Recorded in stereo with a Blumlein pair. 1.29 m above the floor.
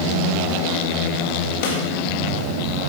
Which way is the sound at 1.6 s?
50° left.